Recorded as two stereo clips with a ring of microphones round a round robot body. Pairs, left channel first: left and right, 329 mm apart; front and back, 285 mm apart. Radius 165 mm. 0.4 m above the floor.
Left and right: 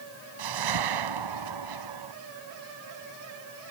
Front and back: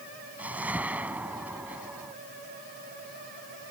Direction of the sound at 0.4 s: 95° right.